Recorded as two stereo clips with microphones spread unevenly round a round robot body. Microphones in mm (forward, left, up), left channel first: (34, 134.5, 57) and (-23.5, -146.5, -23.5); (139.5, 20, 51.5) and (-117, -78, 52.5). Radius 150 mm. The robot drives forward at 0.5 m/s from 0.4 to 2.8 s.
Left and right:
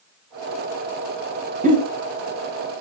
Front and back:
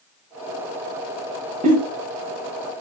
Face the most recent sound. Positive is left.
turn(degrees=-140)